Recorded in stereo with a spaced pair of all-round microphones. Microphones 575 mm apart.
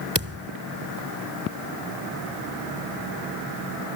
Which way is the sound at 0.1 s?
25° right (ahead or behind).